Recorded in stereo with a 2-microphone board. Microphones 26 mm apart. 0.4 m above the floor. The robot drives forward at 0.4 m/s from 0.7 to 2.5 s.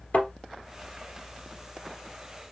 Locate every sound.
0.1 s a thud: 60° left (ahead or behind), 2.5 m